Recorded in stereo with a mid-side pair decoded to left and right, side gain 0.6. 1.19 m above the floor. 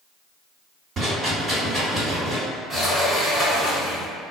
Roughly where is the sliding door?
Ahead.